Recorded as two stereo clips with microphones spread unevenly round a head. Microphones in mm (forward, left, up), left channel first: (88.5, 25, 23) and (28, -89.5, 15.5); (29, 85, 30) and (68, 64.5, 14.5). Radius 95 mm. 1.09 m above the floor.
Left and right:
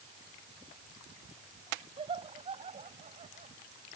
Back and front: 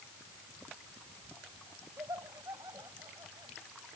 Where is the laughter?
75° right; by 3.5 s 90° right.